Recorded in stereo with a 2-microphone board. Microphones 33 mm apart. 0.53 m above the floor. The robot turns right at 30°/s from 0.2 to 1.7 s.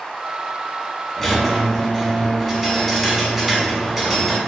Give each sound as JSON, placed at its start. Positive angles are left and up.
{"t": 1.2, "sound": "a squeak", "side_deg": 15, "distance_m": 1.2}